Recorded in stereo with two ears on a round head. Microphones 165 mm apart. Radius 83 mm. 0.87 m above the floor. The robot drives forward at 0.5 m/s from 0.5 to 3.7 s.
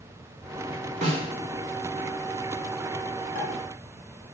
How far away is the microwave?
No microwave in this recording.